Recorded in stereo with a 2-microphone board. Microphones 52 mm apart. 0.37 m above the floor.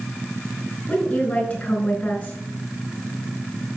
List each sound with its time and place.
0.9 s a woman speaking: 30° left (ahead or behind), 4.5 m